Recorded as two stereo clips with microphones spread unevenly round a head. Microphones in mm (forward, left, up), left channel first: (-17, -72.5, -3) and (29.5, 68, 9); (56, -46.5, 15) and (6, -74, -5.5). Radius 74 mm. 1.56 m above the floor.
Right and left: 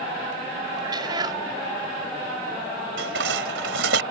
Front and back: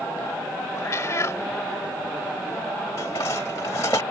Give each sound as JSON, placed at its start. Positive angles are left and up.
{"t": 0.8, "sound": "a cat meowing", "azimuth_deg": 10}
{"t": 3.0, "sound": "dishes clattering", "azimuth_deg": 85}